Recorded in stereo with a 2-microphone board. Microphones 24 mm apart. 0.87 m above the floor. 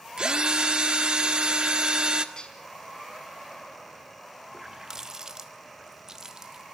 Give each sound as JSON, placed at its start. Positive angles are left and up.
{"t": 0.2, "sound": "a drill", "side_deg": -40, "distance_m": 1.6}
{"t": 2.4, "sound": "dishes clattering", "side_deg": 30, "distance_m": 5.0}
{"t": 4.5, "sound": "a running tap", "side_deg": -25, "distance_m": 1.3}